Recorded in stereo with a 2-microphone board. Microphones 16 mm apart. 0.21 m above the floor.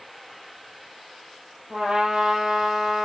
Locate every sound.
1.7 s a trumpet: 75° right (ahead or behind), 4 m